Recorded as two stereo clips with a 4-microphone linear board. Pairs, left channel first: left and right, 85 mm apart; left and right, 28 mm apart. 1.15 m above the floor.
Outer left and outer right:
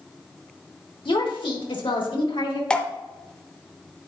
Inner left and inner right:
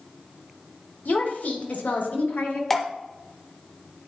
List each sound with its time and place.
1.1 s a woman speaking: 80° left, 1.8 m
2.7 s dripping: 10° left (ahead or behind), 0.8 m